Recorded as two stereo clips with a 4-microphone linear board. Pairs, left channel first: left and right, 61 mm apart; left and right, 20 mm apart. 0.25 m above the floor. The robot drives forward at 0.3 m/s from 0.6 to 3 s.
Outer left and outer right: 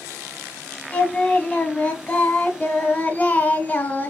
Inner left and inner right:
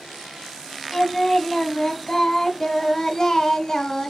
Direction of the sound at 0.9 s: 15° left (ahead or behind).